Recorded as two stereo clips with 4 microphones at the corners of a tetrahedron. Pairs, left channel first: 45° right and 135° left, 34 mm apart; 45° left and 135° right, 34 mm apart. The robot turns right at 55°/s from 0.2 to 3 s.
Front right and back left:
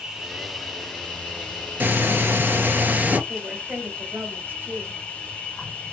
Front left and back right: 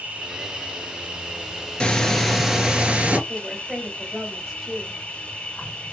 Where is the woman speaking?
145° left, 2 m.